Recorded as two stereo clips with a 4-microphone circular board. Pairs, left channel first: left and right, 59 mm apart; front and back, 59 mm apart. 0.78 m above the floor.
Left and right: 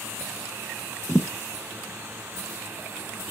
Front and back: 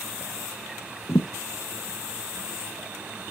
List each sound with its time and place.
1.1 s a thud: straight ahead, 0.8 m